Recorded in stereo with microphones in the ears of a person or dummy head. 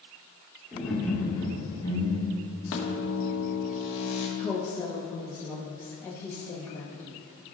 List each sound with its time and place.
0.7 s laughter: 5° right (ahead or behind), 2.5 m; by 2.5 s 30° left (ahead or behind), 2.5 m
2.7 s a microwave: 70° left (ahead or behind), 1.8 m
4.4 s a woman speaking: 10° left (ahead or behind), 1.1 m